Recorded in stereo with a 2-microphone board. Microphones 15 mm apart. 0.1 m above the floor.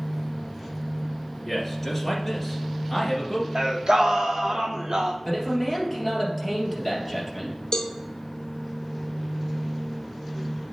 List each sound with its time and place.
1.4 s a man speaking: 10° left (ahead or behind), 2.0 m
3.5 s singing: 60° right (ahead or behind), 1.1 m
5.2 s a man speaking: 10° left (ahead or behind), 3 m
7.7 s a cowbell: 55° left (ahead or behind), 1.3 m